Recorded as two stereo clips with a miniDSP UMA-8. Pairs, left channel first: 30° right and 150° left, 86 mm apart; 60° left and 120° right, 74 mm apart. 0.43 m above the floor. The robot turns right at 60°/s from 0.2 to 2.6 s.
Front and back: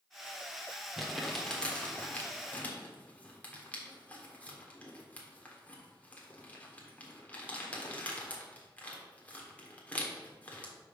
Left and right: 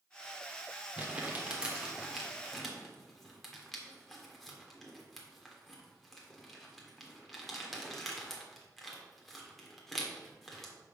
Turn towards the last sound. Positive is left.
turn(degrees=-25)